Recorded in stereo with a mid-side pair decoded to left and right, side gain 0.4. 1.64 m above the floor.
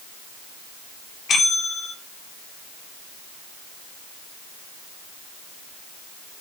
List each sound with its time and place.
1.3 s a bell: 55° left, 3.5 m